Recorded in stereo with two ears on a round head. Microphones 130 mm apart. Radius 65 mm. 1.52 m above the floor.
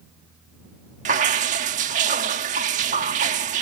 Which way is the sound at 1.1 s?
55° right (ahead or behind).